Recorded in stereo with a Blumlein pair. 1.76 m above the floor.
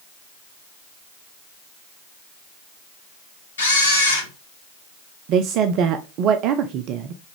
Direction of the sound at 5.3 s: 40° right.